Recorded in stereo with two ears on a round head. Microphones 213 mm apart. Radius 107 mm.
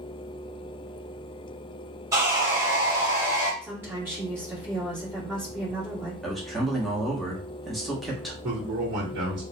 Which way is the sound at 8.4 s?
50° right (ahead or behind).